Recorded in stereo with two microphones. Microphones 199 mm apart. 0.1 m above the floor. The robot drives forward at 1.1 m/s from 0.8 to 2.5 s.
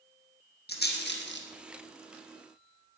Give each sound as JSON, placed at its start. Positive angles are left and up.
{"t": 0.7, "sound": "a rattle", "side_deg": 55, "distance_m": 2.5}